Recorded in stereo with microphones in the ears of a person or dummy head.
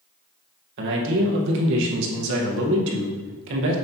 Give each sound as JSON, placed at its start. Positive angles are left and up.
{"t": 0.8, "sound": "a man speaking", "side_deg": -70, "distance_m": 1.7}